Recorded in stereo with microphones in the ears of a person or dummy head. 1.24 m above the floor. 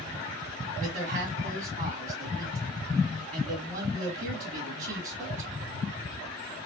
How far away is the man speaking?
About 1.7 m.